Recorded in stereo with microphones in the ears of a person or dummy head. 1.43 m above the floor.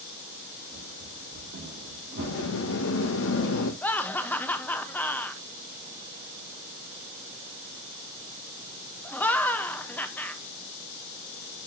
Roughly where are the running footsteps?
Right.